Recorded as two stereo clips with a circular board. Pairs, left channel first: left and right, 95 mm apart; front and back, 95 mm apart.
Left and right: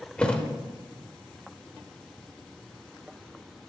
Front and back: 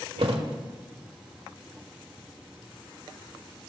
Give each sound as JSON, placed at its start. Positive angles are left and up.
{"t": 0.2, "sound": "a thud", "azimuth_deg": 170, "distance_m": 1.2}